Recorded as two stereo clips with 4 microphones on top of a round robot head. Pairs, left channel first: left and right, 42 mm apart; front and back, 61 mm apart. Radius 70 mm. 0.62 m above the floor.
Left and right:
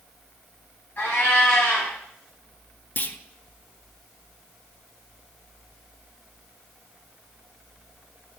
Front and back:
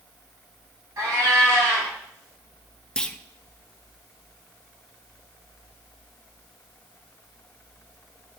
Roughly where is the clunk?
Left.